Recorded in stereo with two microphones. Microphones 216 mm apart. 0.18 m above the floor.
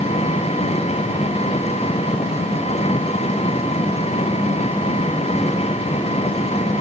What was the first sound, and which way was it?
An engine running, 30° left (ahead or behind).